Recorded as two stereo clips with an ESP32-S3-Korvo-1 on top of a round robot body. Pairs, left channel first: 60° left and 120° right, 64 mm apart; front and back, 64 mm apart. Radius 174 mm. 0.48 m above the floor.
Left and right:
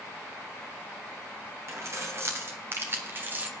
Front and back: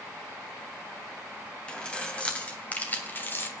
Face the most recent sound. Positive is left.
turn(degrees=-60)